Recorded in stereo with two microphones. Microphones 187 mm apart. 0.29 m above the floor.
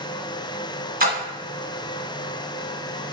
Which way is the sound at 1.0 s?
50° right (ahead or behind).